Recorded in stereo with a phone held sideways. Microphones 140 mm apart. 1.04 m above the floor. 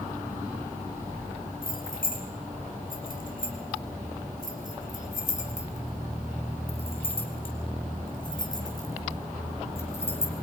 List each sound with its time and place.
1.6 s keys jangling: 85° left, 4.5 m; by 10.3 s 15° left (ahead or behind), 4.5 m